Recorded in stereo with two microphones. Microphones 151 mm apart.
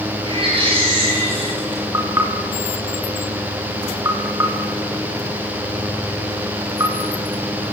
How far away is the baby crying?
About 9 m.